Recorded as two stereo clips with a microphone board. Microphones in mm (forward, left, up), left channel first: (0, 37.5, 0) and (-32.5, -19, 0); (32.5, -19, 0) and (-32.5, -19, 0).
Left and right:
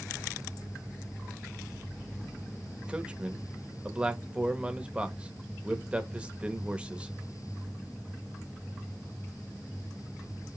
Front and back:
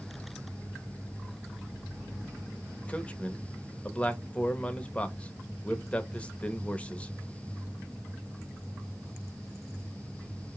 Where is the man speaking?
55° right, 0.7 m.